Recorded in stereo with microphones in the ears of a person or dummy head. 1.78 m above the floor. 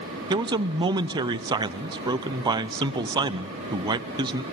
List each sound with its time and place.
0.3 s a man speaking: 20° right (ahead or behind), 0.6 m